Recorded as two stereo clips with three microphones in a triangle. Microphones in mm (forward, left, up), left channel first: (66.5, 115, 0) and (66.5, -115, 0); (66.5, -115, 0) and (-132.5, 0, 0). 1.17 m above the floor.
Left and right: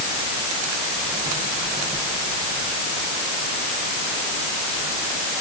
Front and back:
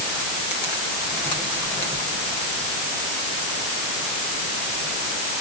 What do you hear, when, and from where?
Only background noise.